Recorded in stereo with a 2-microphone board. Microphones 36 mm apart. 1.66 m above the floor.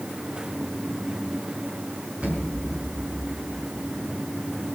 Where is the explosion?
35° right (ahead or behind), 5.5 m.